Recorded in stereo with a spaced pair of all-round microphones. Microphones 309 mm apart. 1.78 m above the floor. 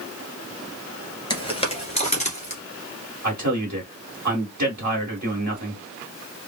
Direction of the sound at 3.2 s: 65° right (ahead or behind).